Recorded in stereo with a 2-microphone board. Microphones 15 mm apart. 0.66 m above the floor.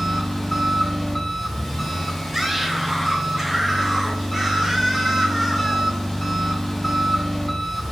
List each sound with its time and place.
0.0 s an engine running: 20° left (ahead or behind), 1.8 m
2.3 s a scream: 20° right (ahead or behind), 1.1 m